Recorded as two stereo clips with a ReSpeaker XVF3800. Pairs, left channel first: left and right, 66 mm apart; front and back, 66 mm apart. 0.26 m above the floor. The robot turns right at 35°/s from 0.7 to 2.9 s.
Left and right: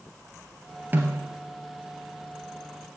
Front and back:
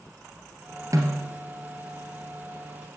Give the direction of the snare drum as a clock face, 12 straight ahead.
5 o'clock.